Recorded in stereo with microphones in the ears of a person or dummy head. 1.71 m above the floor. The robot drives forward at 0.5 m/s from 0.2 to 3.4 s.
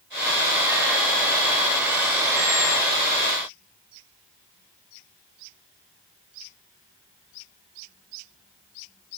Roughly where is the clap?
I don't hear a clap.